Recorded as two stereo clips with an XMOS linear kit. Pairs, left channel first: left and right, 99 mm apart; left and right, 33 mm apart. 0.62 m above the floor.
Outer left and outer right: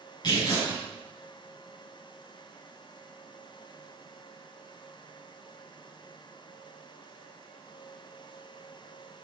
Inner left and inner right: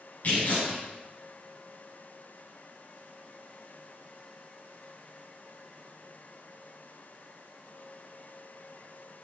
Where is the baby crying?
I don't hear a baby crying.